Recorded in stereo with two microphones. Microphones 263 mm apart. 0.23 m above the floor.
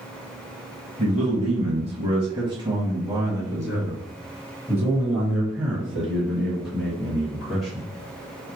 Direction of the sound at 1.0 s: 25° right (ahead or behind).